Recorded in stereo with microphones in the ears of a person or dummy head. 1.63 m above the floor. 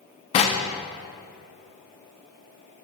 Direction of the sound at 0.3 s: 30° left (ahead or behind).